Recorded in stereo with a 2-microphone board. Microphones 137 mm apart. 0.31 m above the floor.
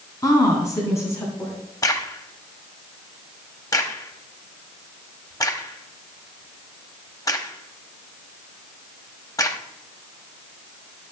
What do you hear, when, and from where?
0.2 s a woman speaking: 25° left (ahead or behind), 3 m; by 1.5 s 15° left (ahead or behind), 3.5 m
1.8 s a crack: 25° left (ahead or behind), 1.1 m